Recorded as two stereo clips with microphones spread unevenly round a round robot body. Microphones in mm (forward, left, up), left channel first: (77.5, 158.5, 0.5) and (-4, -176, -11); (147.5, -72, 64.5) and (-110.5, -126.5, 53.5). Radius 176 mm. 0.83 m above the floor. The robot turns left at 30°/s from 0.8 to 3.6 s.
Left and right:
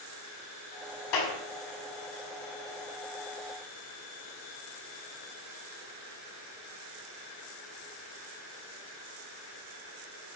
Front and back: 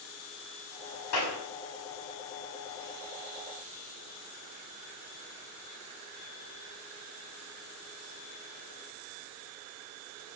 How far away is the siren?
No siren in this recording.